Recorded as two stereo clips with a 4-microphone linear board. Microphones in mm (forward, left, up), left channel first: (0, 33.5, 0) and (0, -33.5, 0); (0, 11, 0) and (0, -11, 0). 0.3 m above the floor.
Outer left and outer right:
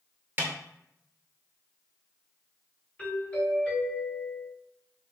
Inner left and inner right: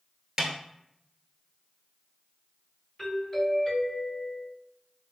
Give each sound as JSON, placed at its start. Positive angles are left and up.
{"t": 0.4, "sound": "a snare drum", "side_deg": -25, "distance_m": 0.8}
{"t": 3.0, "sound": "a doorbell", "side_deg": 20, "distance_m": 1.8}